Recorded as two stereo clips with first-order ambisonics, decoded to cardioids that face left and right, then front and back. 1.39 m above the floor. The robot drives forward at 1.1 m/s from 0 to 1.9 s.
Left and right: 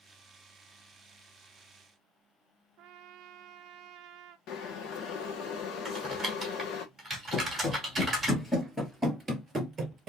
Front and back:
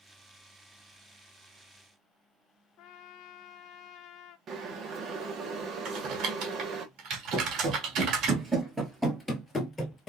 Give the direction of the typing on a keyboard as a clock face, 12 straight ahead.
6 o'clock.